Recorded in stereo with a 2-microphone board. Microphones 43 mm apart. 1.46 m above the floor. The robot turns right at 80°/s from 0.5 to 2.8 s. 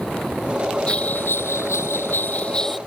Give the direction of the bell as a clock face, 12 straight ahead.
11 o'clock.